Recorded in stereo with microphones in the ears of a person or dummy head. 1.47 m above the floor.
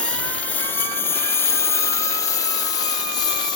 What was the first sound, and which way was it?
A lawn mower, 10° left (ahead or behind).